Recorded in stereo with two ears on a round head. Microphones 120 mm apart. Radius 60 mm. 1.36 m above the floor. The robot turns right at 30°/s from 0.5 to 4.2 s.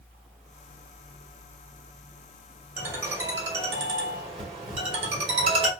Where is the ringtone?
165° right, 1.3 m; by 5.7 s 120° right, 1.3 m.